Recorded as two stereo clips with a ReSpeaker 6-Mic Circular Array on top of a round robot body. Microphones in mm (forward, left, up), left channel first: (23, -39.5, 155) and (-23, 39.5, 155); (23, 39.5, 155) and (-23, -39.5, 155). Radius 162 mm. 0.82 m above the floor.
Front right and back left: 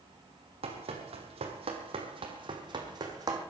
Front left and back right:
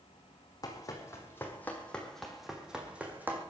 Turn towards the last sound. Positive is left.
turn(degrees=170)